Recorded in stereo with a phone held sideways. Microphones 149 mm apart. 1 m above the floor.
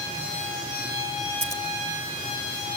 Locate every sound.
1.4 s scissors: 55° left (ahead or behind), 1.6 m